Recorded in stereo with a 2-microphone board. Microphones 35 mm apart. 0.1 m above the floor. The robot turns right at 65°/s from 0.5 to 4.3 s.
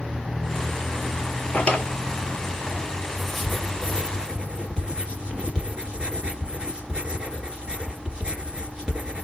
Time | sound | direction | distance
1.5 | a drawer | 40° left (ahead or behind) | 0.6 m
3.2 | writing | 5° left (ahead or behind) | 1.7 m